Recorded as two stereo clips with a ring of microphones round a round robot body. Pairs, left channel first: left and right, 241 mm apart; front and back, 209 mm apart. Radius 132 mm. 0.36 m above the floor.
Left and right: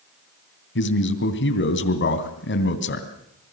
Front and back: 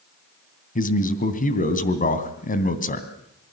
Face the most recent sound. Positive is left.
turn(degrees=50)